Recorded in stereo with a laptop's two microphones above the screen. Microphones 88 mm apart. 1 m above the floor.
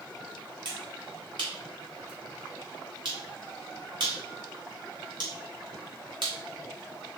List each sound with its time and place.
0.7 s a finger snap: 60° right (ahead or behind), 1.4 m